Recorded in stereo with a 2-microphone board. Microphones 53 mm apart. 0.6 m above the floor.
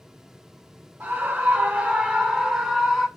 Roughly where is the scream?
Right.